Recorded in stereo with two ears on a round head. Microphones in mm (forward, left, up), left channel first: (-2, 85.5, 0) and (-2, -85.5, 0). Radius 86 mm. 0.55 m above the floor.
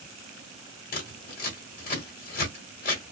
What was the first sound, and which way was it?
Scissors, 50° left (ahead or behind).